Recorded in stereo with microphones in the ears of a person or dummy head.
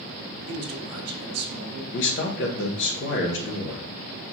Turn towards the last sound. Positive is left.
turn(degrees=55)  # may be behind; listen again after turning